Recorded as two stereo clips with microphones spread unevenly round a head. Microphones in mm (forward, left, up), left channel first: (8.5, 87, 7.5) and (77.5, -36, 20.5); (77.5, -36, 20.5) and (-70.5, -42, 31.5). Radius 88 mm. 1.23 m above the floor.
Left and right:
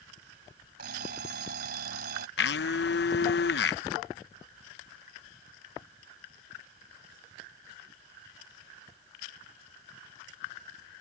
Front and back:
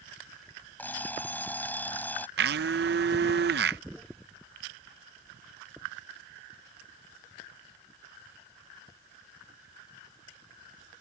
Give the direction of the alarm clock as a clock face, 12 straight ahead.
3 o'clock.